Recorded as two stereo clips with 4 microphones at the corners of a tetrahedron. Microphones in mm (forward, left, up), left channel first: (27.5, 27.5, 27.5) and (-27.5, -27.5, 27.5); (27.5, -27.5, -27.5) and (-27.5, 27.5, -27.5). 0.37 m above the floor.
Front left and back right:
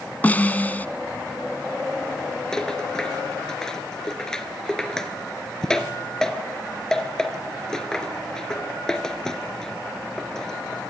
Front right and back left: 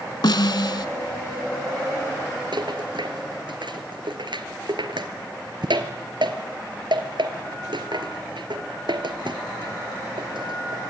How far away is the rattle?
About 2 m.